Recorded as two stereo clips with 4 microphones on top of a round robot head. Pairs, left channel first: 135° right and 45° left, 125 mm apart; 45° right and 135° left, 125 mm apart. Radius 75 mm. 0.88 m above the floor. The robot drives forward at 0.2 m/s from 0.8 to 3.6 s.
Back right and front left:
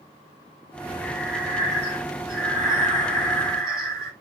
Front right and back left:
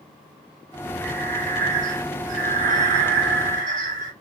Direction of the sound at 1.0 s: 125° left.